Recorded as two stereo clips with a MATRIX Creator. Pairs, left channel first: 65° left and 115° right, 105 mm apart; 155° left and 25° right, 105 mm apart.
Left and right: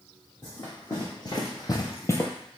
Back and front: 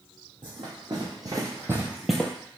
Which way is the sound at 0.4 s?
20° left.